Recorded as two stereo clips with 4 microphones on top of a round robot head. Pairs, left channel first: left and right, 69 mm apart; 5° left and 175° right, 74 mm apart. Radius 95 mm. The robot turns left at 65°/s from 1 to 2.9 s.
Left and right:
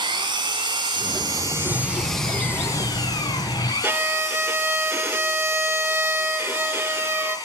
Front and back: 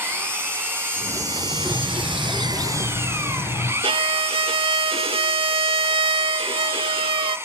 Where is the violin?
160° right, 0.6 m.